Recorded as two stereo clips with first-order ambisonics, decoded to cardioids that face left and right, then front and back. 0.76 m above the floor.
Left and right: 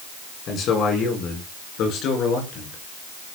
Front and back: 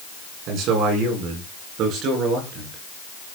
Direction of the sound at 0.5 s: 140° left.